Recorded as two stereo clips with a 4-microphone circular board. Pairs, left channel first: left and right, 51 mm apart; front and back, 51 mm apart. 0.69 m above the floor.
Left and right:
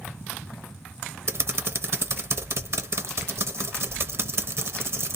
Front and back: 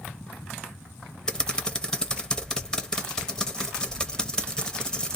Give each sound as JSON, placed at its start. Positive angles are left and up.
{"t": 1.3, "sound": "typing on a keyboard", "azimuth_deg": -70, "distance_m": 0.6}